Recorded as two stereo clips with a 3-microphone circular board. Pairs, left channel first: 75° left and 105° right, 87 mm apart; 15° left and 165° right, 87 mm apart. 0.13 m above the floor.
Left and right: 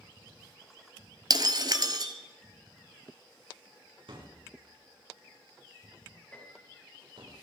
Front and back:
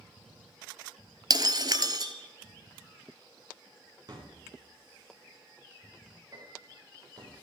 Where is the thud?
125° right, 7.5 m.